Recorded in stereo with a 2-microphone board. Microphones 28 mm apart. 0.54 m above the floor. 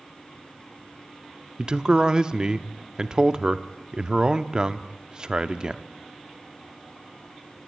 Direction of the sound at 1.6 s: 30° right (ahead or behind).